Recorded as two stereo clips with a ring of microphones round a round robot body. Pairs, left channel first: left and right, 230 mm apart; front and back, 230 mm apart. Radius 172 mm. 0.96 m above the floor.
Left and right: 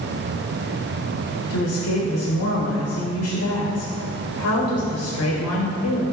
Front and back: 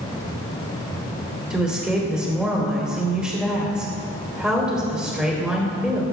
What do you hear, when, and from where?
1.5 s a woman speaking: 95° left, 3.5 m